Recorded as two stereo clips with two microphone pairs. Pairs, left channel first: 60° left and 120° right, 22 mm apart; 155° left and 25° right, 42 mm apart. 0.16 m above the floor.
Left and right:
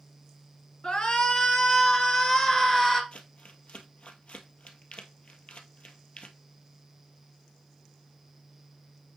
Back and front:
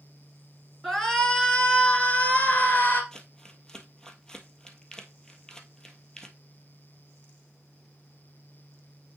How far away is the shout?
About 1.7 m.